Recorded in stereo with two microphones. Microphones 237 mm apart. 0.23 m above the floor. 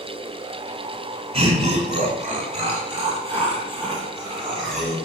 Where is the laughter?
25° right (ahead or behind), 1.8 m; by 5.0 s 15° right (ahead or behind), 3 m.